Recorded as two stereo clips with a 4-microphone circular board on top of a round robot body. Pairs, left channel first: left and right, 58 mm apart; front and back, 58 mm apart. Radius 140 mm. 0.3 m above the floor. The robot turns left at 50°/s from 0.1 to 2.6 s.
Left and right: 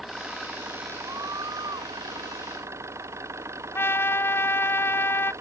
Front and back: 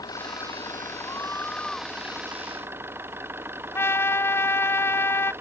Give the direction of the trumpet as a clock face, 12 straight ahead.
10 o'clock.